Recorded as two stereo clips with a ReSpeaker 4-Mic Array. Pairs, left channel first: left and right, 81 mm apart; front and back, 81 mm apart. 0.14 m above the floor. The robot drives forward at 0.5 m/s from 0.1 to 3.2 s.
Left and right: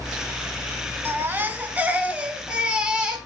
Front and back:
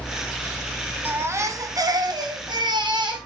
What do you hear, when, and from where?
1.1 s a baby crying: 130° right, 0.5 m; by 3.2 s 170° right, 1.3 m